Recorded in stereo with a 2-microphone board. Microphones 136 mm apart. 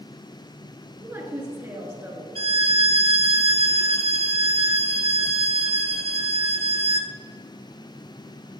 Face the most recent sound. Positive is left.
turn(degrees=-45)  # may be behind; listen again after turning